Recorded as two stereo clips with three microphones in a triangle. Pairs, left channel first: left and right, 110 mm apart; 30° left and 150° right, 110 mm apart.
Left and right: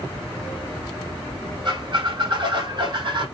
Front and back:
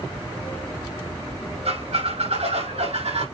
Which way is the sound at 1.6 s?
135° right.